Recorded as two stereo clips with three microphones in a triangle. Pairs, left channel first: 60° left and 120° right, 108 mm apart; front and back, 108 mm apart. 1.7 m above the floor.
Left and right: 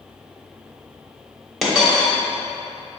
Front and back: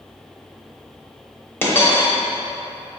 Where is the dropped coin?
30° right, 1.0 m.